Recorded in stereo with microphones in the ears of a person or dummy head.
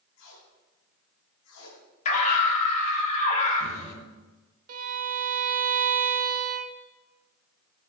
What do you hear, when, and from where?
0.2 s tape being pulled: 80° left, 5 m
2.0 s a scream: 40° left (ahead or behind), 3 m
4.7 s a violin: 50° right (ahead or behind), 1.2 m